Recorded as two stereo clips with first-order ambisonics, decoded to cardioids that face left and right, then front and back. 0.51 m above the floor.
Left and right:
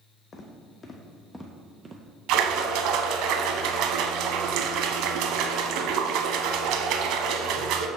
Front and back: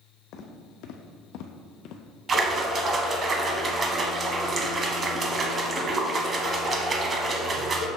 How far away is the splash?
About 0.6 m.